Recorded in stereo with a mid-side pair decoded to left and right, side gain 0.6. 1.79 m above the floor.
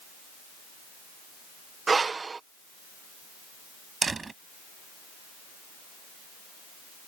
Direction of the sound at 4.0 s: 25° right.